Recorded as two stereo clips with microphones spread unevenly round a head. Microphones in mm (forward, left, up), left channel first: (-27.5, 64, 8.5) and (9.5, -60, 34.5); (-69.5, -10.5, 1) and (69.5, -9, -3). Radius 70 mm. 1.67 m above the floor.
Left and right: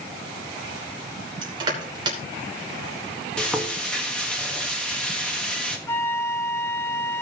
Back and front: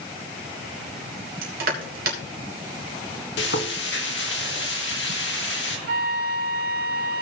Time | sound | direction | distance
1.4 | crushing | 20° right | 2.5 m
3.4 | frying | 170° right | 1.5 m
5.9 | a flute | 35° left | 0.7 m